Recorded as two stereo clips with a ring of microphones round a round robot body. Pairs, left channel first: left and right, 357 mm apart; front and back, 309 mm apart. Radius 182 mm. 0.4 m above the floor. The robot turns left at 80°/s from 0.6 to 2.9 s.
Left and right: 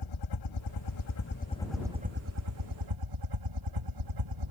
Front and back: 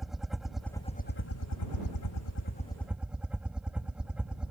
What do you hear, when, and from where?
0.0 s a helicopter: 90° left; by 4.5 s 95° right